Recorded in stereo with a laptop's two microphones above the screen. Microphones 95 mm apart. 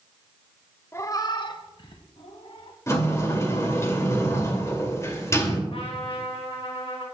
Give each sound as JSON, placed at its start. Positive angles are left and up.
{"t": 0.9, "sound": "a cat meowing", "side_deg": 25, "distance_m": 0.7}
{"t": 2.9, "sound": "a sliding door", "side_deg": 30, "distance_m": 2.5}
{"t": 5.7, "sound": "a trumpet", "side_deg": 80, "distance_m": 4.0}